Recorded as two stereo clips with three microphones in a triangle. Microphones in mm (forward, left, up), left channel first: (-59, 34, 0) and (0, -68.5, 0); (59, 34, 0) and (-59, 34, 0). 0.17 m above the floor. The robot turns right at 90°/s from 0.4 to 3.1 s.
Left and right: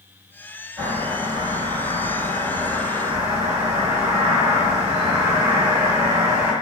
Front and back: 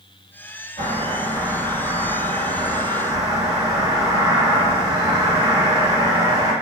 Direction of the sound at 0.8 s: 20° left.